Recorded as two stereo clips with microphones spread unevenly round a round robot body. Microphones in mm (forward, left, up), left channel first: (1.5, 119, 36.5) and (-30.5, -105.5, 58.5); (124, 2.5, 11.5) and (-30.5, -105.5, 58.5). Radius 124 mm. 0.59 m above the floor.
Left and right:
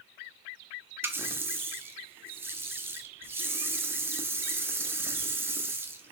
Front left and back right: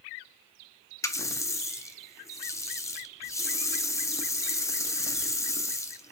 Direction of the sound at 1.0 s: 15° right.